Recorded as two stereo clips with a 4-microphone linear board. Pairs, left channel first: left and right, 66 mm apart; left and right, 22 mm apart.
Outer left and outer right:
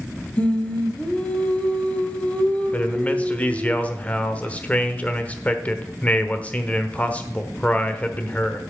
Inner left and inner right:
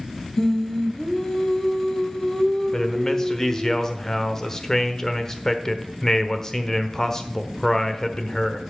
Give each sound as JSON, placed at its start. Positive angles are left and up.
{"t": 0.4, "sound": "singing", "side_deg": 20, "distance_m": 1.1}
{"t": 2.7, "sound": "a man speaking", "side_deg": 20, "distance_m": 1.1}